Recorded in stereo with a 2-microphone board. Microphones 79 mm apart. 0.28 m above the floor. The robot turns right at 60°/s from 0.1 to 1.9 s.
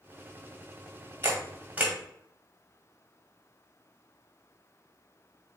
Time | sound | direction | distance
1.2 | a camera shutter | 35° right (ahead or behind) | 1.6 m